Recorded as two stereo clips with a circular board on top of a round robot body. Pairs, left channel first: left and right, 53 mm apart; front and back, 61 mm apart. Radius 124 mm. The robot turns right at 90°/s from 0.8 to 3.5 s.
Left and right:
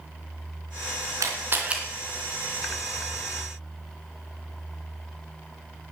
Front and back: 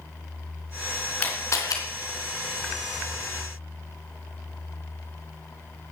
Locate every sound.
1.2 s a camera shutter: 70° right, 3 m; by 1.8 s 15° right, 3 m